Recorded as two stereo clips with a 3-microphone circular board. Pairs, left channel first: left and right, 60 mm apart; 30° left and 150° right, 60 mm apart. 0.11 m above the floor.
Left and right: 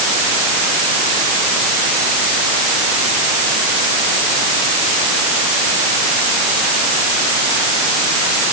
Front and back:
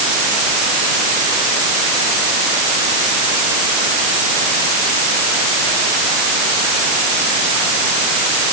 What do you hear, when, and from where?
Only background noise.